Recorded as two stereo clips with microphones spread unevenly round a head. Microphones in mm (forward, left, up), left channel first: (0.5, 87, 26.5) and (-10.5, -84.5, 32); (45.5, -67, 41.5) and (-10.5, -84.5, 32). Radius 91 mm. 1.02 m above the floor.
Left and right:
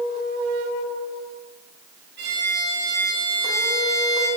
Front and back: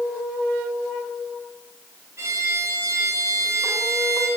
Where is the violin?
125° right, 6 m.